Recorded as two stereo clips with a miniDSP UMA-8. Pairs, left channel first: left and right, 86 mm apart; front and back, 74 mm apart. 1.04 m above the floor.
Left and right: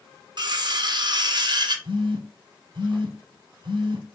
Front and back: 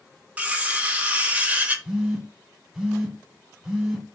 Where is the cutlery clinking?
110° right, 0.5 m.